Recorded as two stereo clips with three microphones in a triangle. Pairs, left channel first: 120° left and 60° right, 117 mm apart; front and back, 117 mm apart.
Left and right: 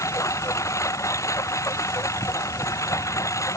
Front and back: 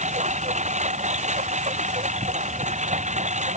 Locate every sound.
0.0 s a lawn mower: 175° right